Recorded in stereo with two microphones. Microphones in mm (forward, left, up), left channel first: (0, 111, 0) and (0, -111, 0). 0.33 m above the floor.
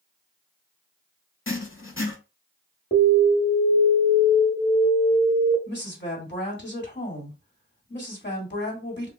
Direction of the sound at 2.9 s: 35° left (ahead or behind).